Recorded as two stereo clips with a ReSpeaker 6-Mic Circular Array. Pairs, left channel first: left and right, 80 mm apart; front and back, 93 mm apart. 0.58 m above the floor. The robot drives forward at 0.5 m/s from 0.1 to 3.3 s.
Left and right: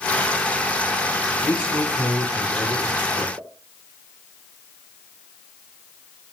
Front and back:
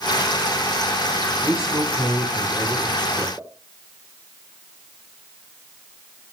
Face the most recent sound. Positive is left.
turn(degrees=-115)